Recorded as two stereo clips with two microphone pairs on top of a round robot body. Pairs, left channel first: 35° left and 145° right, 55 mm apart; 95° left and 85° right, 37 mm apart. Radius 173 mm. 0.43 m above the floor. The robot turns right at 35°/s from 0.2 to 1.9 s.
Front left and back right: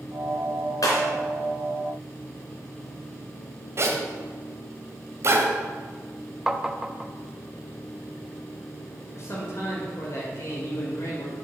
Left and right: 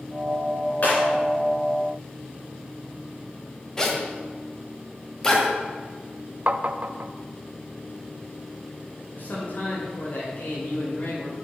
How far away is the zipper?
About 1.6 m.